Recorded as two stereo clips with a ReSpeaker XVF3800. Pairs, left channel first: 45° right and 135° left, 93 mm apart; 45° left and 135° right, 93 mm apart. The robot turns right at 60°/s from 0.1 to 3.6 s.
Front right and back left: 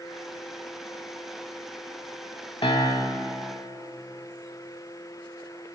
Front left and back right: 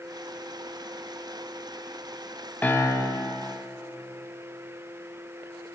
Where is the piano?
25° right, 0.7 m; by 3.3 s 15° left, 0.7 m.